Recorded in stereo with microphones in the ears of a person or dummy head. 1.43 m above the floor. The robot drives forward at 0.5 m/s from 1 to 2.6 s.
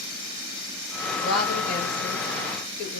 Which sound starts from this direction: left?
A woman speaking, at 1.2 s.